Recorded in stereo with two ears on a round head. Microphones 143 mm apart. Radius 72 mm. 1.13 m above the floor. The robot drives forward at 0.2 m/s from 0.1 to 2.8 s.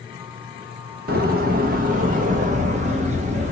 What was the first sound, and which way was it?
A door slam, 60° right (ahead or behind).